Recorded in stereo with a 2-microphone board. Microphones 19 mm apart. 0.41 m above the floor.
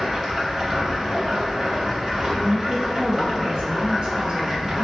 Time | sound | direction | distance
0.0 | running water | 25° right (ahead or behind) | 1.3 m
2.4 | a woman speaking | 45° right (ahead or behind) | 1.4 m